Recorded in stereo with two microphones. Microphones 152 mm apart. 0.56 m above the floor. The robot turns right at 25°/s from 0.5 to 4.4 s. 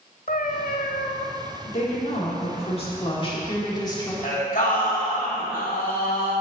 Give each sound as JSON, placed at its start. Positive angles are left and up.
{"t": 0.3, "sound": "a cat meowing", "side_deg": 80, "distance_m": 0.7}
{"t": 1.7, "sound": "a woman speaking", "azimuth_deg": 85, "distance_m": 1.6}
{"t": 4.2, "sound": "singing", "side_deg": 70, "distance_m": 2.5}